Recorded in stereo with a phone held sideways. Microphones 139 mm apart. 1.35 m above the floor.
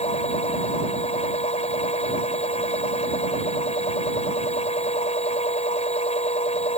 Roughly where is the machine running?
Left.